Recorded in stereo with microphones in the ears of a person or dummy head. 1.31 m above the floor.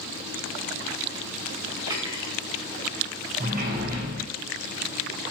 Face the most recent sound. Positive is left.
turn(degrees=-45)  # may be behind; listen again after turning